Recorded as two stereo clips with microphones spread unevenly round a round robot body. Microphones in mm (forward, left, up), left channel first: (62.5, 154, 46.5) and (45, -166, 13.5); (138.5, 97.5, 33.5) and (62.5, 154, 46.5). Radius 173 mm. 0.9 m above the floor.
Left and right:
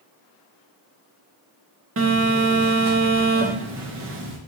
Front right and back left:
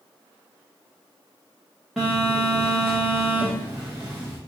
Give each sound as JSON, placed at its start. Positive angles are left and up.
{"t": 2.0, "sound": "a phone buzzing", "azimuth_deg": -120, "distance_m": 0.6}